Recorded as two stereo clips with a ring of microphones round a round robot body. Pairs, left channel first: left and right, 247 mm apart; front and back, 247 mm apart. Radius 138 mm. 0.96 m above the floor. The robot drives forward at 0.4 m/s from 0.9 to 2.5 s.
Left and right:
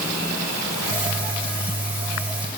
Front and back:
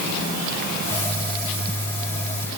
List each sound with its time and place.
Only background noise.